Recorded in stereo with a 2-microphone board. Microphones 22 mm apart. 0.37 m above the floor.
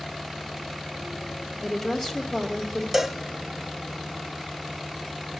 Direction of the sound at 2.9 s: 10° right (ahead or behind).